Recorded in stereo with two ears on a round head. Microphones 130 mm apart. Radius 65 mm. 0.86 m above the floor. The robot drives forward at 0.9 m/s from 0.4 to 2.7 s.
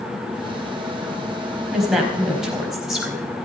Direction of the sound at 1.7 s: Centre (ahead or behind).